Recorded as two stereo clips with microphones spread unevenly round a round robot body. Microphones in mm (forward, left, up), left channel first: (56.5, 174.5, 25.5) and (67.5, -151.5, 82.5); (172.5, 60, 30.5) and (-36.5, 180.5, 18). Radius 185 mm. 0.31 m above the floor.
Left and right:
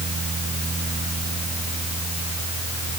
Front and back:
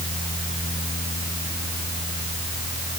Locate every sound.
Only background noise.